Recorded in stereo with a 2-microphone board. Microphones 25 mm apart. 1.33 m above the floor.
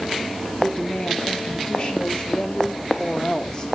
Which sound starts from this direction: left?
A woman speaking, at 0.6 s.